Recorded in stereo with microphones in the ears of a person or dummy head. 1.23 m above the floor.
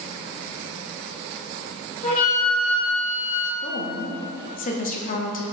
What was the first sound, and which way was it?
A flute, 45° left (ahead or behind).